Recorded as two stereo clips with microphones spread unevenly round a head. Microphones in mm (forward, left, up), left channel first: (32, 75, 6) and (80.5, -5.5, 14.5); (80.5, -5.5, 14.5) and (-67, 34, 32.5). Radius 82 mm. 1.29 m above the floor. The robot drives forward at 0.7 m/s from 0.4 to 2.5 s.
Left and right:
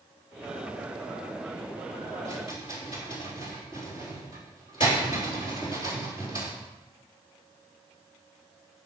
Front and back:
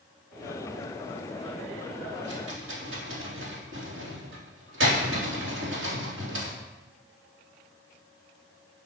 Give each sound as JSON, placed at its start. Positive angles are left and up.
{"t": 2.2, "sound": "a rattle", "azimuth_deg": 175, "distance_m": 3.5}